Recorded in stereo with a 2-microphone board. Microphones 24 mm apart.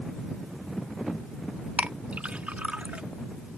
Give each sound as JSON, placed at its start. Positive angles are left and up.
{"t": 1.8, "sound": "a clink", "side_deg": -70}